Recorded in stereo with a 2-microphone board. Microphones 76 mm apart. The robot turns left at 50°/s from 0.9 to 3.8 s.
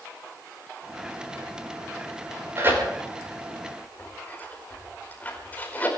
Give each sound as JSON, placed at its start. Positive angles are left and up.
{"t": 2.6, "sound": "tearing paper", "side_deg": -35, "distance_m": 4.5}